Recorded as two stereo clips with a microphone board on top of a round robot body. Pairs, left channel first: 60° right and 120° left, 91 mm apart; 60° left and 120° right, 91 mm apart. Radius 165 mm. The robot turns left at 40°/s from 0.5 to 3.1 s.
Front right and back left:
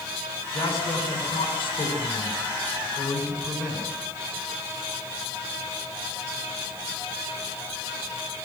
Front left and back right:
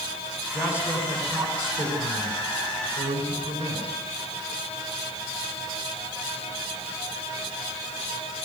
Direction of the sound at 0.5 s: 35° right.